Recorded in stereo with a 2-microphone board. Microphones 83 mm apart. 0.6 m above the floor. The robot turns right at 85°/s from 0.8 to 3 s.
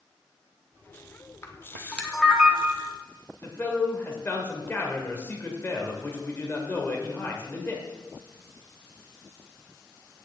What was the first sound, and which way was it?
A camera shutter, 30° left (ahead or behind).